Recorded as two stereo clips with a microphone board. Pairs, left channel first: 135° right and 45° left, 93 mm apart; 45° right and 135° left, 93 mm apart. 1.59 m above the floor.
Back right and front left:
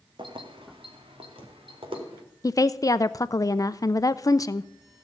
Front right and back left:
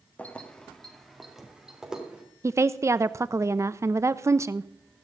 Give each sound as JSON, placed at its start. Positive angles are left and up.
{"t": 0.2, "sound": "keys jangling", "azimuth_deg": 25, "distance_m": 1.7}
{"t": 2.4, "sound": "a woman speaking", "azimuth_deg": -175, "distance_m": 0.6}